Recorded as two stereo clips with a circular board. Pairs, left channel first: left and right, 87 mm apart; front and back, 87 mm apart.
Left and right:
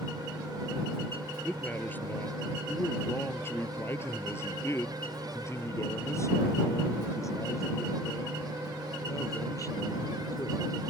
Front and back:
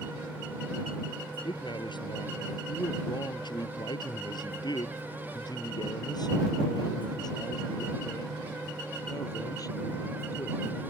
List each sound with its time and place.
1.4 s a man speaking: 20° left; by 10.6 s 45° left